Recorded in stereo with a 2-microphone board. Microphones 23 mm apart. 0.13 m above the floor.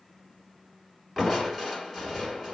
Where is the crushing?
Centre (ahead or behind), 1.3 m.